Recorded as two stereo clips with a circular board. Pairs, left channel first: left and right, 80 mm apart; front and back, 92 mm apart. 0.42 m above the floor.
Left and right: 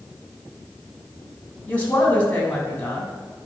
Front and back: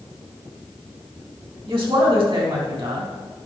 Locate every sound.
1.7 s a woman speaking: 160° left, 3 m